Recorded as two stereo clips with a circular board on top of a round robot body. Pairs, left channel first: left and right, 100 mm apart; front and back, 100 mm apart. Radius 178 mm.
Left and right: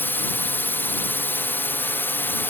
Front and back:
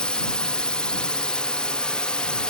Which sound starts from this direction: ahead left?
A drone, at 0.0 s.